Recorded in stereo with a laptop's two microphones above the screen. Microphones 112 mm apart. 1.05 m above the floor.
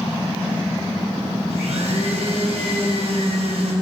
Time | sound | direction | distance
1.5 | a blender | 75° right (ahead or behind) | 3 m